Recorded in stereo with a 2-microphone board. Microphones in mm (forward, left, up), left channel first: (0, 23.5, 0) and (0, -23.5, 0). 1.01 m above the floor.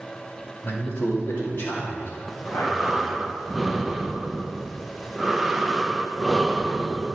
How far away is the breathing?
About 0.5 m.